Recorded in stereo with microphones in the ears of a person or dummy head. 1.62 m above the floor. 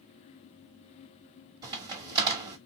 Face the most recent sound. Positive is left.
turn(degrees=-25)  # may be behind; listen again after turning